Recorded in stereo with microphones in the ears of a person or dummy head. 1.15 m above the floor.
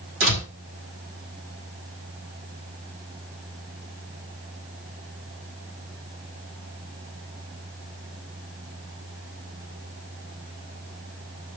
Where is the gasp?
No gasp in this recording.